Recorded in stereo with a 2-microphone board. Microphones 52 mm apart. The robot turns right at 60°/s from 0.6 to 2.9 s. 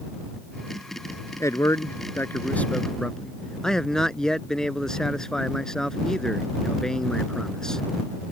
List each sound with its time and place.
1.4 s a man speaking: 80° left; by 7.8 s 170° left